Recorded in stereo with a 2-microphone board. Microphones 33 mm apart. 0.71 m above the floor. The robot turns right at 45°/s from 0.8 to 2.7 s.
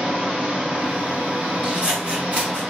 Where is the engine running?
145° right, 1.5 m; by 2.7 s 55° right, 1.5 m.